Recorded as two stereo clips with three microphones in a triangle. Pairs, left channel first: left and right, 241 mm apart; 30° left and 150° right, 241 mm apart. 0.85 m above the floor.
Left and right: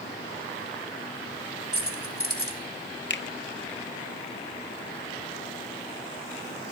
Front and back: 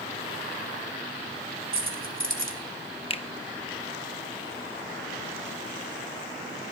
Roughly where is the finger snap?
Left.